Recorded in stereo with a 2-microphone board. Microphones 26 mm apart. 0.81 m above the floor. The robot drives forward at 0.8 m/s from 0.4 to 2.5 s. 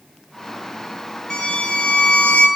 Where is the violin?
35° left (ahead or behind), 0.8 m; by 2.5 s 40° left (ahead or behind), 0.7 m.